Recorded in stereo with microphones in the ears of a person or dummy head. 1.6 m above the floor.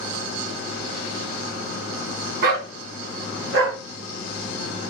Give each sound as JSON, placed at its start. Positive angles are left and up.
{"t": 2.4, "sound": "a dog barking", "side_deg": -55, "distance_m": 3.0}